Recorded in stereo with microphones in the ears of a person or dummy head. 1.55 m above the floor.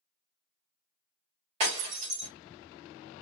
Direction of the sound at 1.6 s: 40° right (ahead or behind).